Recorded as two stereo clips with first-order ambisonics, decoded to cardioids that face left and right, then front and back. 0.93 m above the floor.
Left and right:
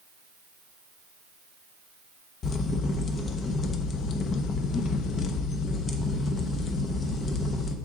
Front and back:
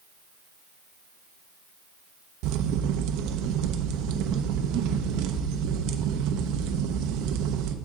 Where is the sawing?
I don't hear sawing.